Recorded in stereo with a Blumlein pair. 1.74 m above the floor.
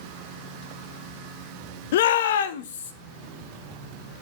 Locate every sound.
1.9 s a shout: 55° left, 0.6 m; by 2.9 s 65° left, 1.2 m